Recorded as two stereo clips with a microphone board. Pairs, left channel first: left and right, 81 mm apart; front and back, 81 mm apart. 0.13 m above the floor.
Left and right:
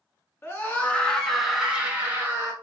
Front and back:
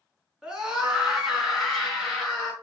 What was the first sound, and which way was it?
A scream, 105° left.